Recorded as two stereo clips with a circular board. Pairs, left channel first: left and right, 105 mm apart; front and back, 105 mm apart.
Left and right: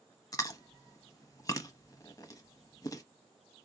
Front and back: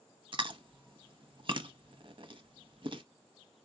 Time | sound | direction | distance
0.3 | chewing | 145° left | 0.6 m